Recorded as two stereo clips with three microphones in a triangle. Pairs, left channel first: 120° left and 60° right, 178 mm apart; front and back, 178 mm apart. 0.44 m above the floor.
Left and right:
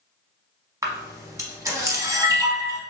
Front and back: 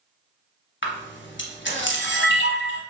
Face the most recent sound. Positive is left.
turn(degrees=10)